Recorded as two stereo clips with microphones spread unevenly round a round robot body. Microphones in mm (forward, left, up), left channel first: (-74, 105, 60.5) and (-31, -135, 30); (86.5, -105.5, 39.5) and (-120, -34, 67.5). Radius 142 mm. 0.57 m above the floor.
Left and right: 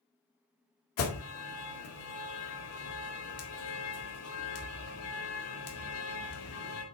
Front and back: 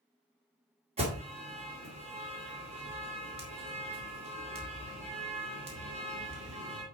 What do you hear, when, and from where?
1.0 s an alarm: 95° left, 2.5 m